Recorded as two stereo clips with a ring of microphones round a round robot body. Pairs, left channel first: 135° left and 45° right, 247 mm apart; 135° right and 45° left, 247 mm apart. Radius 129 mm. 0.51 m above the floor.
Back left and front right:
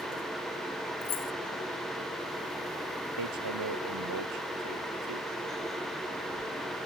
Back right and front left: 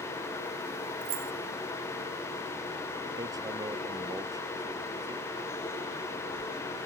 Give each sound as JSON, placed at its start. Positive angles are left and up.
{"t": 1.0, "sound": "keys jangling", "azimuth_deg": 80}
{"t": 3.2, "sound": "hammering", "azimuth_deg": -30}